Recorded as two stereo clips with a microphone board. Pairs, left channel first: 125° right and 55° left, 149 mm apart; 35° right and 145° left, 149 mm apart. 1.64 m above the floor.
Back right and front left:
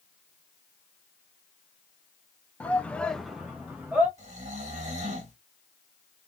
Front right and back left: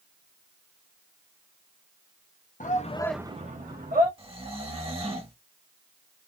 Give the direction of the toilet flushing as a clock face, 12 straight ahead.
I don't hear a toilet flushing.